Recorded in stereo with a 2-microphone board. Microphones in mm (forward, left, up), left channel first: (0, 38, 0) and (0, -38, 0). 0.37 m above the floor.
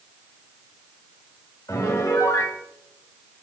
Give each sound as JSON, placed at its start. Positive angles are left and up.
{"t": 1.7, "sound": "a piano", "side_deg": 45, "distance_m": 1.3}